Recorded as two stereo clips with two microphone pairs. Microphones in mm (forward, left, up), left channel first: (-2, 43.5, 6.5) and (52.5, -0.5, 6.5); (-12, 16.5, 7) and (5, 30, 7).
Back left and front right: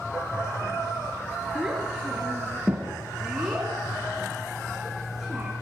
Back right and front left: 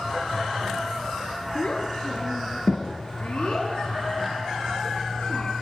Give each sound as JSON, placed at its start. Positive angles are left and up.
{"t": 1.6, "sound": "a child speaking", "azimuth_deg": -120, "distance_m": 4.5}